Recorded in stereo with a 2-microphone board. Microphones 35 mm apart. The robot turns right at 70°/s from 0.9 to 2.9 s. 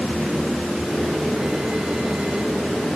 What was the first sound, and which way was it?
Only background noise.